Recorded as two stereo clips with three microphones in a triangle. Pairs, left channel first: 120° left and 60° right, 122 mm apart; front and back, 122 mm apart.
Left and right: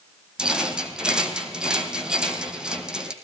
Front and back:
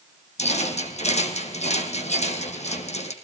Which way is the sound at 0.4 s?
25° left.